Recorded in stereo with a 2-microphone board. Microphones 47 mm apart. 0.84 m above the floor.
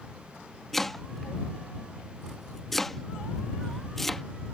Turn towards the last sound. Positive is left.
turn(degrees=5)  # may be behind; listen again after turning